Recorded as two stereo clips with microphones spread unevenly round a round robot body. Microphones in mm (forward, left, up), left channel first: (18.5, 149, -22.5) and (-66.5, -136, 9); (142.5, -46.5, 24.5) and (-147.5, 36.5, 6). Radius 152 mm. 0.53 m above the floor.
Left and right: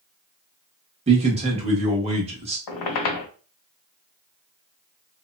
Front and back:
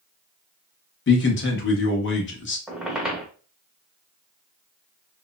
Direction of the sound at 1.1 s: 40° right.